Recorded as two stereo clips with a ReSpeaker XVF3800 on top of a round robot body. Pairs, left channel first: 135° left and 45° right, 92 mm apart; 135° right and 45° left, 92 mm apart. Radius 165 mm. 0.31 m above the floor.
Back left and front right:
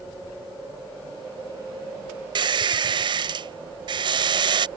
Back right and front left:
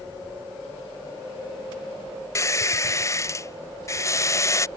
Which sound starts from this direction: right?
A squeak, at 2.4 s.